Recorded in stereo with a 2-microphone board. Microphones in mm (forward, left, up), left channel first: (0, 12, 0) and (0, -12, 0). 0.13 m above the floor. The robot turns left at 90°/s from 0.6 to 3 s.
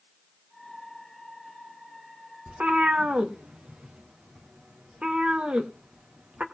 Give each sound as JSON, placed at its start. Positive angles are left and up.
{"t": 2.5, "sound": "a cat meowing", "side_deg": -70, "distance_m": 1.9}